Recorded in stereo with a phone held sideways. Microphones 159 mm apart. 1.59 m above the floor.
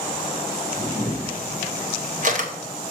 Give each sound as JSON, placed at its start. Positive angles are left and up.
{"t": 0.8, "sound": "a camera shutter", "side_deg": -55, "distance_m": 1.2}